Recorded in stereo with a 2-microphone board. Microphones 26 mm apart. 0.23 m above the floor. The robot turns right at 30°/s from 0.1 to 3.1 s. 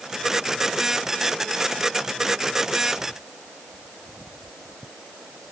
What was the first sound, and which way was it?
Only background noise.